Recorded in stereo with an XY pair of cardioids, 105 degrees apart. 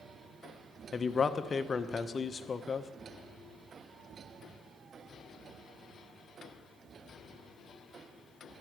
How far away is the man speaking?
About 0.5 m.